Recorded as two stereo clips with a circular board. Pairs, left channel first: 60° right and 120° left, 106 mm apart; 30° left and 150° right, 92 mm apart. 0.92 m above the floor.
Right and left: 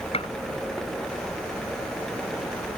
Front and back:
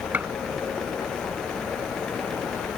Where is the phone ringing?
I don't hear a phone ringing.